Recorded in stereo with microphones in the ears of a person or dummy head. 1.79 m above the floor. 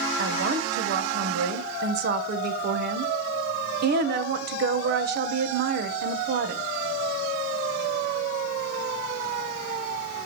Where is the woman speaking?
65° right (ahead or behind), 1.6 m.